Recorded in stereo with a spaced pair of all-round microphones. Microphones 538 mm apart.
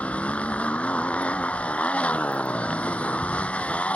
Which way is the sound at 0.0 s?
Centre (ahead or behind).